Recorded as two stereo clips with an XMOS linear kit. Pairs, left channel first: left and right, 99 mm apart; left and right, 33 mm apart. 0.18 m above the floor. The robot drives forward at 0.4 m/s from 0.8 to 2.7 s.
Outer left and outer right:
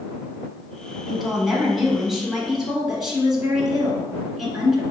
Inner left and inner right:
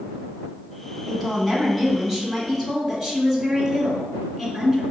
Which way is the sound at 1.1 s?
5° right (ahead or behind).